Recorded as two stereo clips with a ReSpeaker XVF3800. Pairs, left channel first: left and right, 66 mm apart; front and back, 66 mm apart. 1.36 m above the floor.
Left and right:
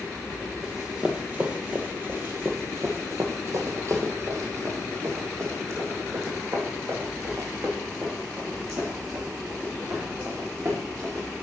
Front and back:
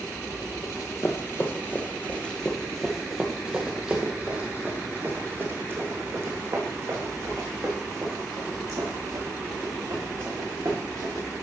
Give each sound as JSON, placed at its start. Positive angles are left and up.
{"t": 0.6, "sound": "running footsteps", "azimuth_deg": -15, "distance_m": 1.9}